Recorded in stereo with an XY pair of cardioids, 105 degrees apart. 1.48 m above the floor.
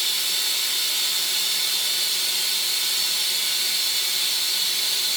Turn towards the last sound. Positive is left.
turn(degrees=-5)